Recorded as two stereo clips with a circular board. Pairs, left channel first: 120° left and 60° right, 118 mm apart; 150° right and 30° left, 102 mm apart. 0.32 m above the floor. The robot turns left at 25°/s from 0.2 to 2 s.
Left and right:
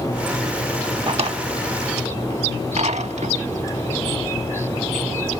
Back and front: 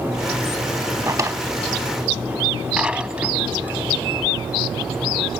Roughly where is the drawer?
Ahead right.